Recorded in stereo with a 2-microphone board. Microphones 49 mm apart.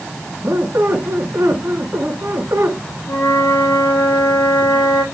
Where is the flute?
90° left, 3 m.